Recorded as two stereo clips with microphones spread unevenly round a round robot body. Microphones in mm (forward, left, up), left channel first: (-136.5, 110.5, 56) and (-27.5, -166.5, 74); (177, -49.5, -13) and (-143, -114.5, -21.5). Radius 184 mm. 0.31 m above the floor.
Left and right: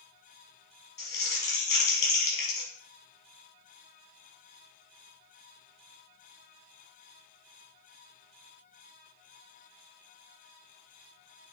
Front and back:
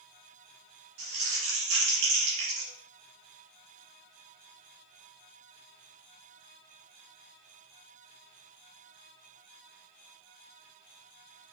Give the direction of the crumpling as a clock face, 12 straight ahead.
7 o'clock.